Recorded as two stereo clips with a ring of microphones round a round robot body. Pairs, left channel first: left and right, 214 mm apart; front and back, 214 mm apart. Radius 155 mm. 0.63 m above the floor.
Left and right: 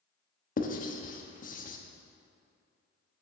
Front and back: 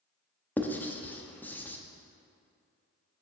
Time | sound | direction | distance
0.6 | writing | 75° left | 0.9 m